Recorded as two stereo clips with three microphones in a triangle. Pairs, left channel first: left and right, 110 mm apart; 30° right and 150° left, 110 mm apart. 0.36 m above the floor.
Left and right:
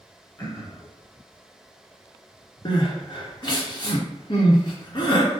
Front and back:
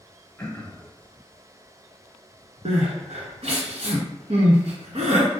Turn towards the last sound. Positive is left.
turn(degrees=135)